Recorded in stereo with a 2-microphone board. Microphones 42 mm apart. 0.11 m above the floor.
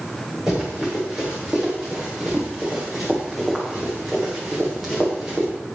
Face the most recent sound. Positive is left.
turn(degrees=0)  # may be behind; listen again after turning